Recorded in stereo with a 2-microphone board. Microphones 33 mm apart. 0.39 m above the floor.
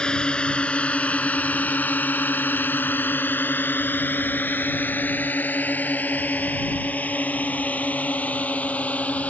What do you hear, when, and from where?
0.0 s a drone: 25° left (ahead or behind); by 9.3 s 45° left (ahead or behind)